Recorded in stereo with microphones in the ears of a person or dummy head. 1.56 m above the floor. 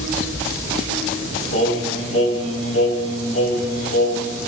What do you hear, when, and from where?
1.5 s singing: 40° left (ahead or behind), 7 m